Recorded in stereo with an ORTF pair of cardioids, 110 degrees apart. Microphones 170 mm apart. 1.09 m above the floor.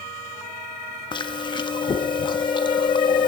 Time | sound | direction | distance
1.1 | chewing | 25° left | 1.2 m